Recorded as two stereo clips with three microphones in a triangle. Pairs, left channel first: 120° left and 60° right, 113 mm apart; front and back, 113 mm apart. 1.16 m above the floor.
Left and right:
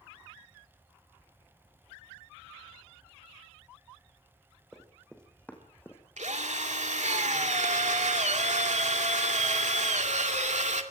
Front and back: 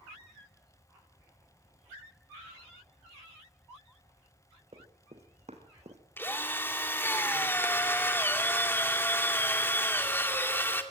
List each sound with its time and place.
4.7 s running footsteps: 150° right, 4 m; by 6.0 s 170° right, 3.5 m
6.2 s a drill: 70° right, 2 m